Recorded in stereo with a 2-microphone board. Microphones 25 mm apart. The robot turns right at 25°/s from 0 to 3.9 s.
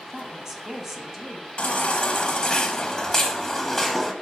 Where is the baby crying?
110° left, 1.1 m; by 4.1 s 165° left, 1.1 m.